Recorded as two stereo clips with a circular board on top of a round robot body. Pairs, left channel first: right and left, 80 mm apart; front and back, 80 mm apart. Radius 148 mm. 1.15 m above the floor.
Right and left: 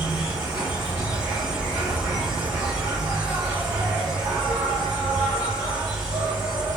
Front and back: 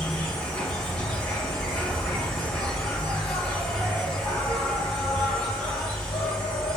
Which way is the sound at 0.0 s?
60° left.